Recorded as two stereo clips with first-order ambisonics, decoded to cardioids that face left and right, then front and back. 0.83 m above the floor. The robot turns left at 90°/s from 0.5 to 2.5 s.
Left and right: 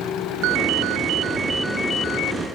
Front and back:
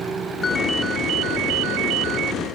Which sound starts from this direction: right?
A ringtone, at 0.4 s.